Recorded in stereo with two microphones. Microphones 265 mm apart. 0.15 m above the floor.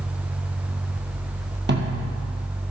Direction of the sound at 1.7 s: 45° right (ahead or behind).